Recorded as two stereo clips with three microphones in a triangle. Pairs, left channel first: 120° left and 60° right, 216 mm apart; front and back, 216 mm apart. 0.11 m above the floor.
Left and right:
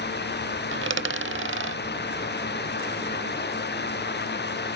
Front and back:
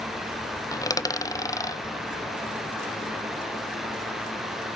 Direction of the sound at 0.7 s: 75° right.